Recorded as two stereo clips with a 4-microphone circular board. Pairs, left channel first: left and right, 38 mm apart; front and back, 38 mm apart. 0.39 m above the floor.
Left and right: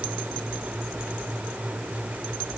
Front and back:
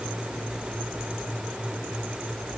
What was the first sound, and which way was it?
Only background noise.